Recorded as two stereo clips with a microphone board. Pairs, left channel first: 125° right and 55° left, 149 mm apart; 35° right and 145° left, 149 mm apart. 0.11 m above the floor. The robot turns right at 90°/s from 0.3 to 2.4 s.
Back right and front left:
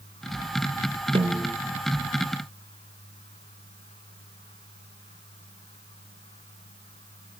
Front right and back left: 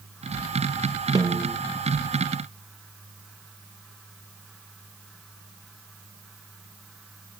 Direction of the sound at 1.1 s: 90° left.